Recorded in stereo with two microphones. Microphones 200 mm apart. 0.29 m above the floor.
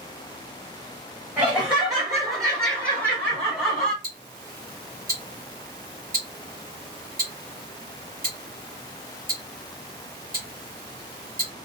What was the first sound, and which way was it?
Laughter, 10° right (ahead or behind).